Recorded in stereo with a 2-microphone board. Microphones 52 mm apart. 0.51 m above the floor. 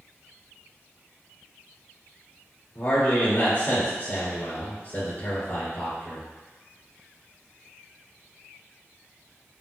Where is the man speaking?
45° left (ahead or behind), 1.8 m.